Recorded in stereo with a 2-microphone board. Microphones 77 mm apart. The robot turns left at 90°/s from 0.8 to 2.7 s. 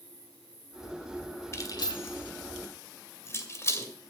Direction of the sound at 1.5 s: 40° left (ahead or behind).